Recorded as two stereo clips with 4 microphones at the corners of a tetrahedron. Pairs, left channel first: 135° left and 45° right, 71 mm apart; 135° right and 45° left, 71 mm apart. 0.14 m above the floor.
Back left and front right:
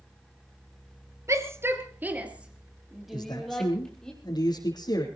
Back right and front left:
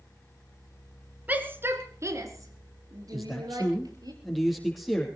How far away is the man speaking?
About 4.5 m.